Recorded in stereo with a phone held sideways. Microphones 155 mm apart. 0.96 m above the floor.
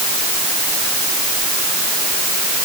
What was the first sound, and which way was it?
Only background noise.